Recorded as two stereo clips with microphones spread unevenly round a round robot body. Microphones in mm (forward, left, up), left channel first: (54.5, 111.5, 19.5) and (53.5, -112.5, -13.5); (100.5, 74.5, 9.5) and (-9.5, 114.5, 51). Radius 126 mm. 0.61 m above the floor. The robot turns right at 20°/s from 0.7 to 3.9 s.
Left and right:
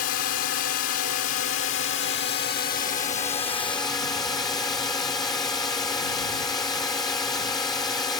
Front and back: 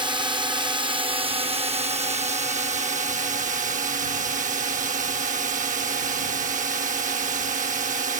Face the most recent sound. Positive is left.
turn(degrees=170)